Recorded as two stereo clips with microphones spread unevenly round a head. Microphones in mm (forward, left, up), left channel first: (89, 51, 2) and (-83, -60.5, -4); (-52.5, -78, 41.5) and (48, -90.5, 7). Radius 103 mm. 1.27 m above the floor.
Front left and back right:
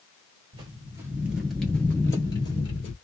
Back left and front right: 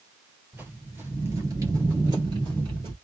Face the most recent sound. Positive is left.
turn(degrees=35)